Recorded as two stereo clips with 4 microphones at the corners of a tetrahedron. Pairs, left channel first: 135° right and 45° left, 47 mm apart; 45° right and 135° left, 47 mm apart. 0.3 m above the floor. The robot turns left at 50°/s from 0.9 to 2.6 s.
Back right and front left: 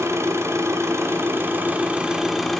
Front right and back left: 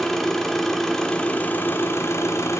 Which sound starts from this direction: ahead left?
An engine running, at 0.0 s.